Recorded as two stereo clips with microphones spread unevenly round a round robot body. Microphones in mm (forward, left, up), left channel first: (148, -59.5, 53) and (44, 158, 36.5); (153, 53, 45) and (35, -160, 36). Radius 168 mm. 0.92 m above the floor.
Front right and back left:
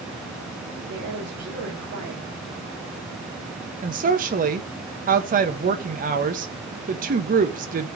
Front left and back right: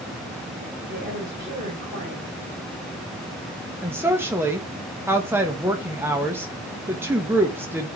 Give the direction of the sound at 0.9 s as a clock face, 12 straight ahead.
7 o'clock.